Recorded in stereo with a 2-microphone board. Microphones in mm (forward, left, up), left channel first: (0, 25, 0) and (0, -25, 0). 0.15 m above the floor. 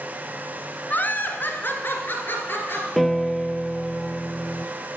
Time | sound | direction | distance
0.9 | laughter | 35° left (ahead or behind) | 1.4 m
3.0 | a piano | centre (ahead or behind) | 0.5 m